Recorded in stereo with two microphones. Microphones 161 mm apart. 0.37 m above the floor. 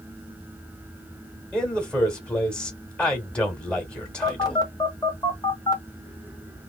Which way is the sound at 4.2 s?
25° left (ahead or behind).